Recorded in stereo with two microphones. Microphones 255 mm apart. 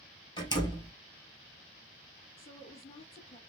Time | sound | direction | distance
0.4 | a door slam | 20° left (ahead or behind) | 2 m
2.4 | a woman speaking | 20° left (ahead or behind) | 1.5 m